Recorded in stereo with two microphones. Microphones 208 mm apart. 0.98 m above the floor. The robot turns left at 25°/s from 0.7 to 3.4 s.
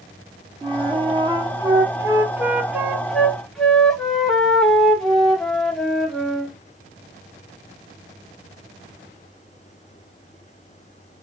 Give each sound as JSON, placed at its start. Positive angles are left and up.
{"t": 0.6, "sound": "a flute", "side_deg": -25, "distance_m": 0.5}